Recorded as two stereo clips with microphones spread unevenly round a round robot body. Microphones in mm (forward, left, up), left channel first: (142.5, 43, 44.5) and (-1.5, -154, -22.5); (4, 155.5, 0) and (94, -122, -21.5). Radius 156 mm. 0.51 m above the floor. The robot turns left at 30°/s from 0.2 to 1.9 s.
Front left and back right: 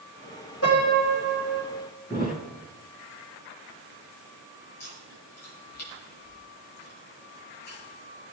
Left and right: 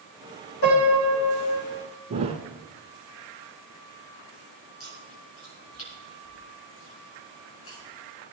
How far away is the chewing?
About 5.5 m.